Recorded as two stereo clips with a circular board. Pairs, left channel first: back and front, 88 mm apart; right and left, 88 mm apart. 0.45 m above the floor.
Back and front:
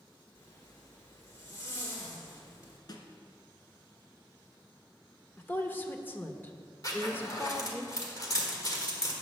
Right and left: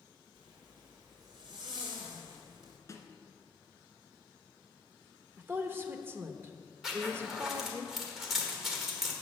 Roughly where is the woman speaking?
Behind left.